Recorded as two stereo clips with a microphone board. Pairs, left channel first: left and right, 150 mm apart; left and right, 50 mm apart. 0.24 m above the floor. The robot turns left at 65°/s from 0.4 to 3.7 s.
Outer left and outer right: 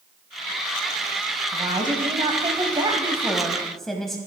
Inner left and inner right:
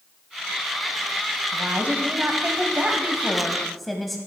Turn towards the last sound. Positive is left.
turn(degrees=175)